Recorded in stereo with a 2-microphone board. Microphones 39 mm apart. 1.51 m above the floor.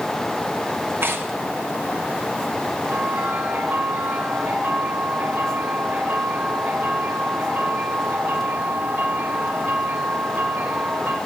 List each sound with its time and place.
1.0 s tearing paper: 60° right (ahead or behind), 2.0 m
2.8 s a bell: 65° right (ahead or behind), 4.5 m